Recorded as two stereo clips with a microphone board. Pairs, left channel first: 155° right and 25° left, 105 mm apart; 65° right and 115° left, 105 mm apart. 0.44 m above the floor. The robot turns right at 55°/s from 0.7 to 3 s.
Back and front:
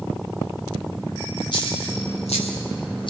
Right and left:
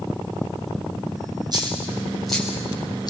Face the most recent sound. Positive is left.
turn(degrees=-115)